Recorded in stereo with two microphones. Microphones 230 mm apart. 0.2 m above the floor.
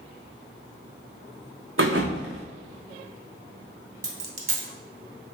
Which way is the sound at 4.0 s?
80° right.